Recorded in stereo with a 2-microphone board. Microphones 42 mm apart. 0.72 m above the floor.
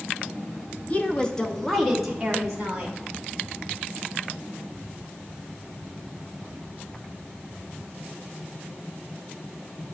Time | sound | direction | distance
0.9 | a woman speaking | 35° left (ahead or behind) | 0.8 m